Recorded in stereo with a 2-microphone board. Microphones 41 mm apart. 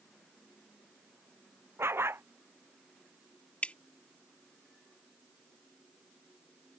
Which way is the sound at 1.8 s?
80° right.